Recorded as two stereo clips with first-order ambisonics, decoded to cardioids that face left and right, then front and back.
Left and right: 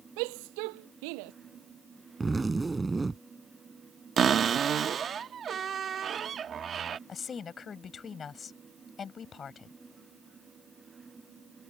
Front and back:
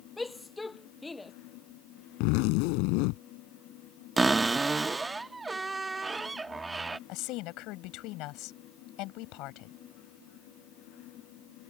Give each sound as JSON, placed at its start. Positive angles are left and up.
{"t": 0.2, "sound": "a shout", "azimuth_deg": -80}
{"t": 2.2, "sound": "a zipper", "azimuth_deg": -10}
{"t": 4.2, "sound": "a cupboard door", "azimuth_deg": -115}
{"t": 7.1, "sound": "a woman speaking", "azimuth_deg": 25}